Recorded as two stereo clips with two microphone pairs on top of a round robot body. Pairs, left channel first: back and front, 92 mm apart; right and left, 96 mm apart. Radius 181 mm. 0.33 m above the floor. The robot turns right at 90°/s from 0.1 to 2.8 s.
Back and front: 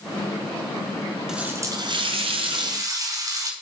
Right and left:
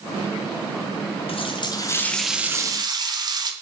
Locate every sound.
1.3 s a running tap: 85° right, 1.4 m; by 3.5 s 50° left, 1.4 m